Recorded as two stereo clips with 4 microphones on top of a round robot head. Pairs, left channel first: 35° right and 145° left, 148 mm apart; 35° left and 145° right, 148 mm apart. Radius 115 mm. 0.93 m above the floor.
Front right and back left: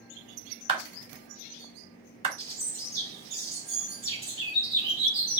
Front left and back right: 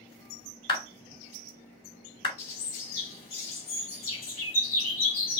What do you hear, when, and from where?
0.7 s a clap: 90° left, 3.5 m
2.4 s a bird: 85° left, 3.5 m